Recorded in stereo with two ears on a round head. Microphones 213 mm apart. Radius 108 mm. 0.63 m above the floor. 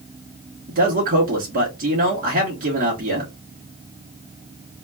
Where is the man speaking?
40° right (ahead or behind), 1.2 m.